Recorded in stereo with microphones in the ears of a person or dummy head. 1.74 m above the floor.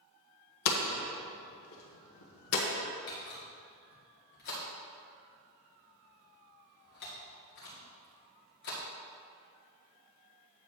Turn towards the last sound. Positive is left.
turn(degrees=45)  # may be behind; listen again after turning